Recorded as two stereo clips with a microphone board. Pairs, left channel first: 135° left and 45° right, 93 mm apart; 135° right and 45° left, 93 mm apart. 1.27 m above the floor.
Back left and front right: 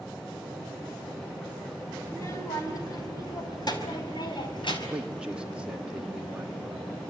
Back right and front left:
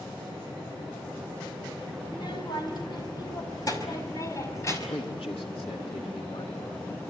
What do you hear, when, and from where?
2.0 s a child speaking: 165° right, 5 m; by 4.8 s 165° left, 5.5 m
4.9 s a man speaking: 125° right, 3 m